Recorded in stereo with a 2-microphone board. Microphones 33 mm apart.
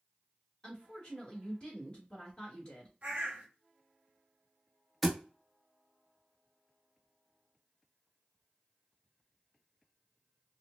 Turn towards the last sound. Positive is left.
turn(degrees=0)  # may be behind; listen again after turning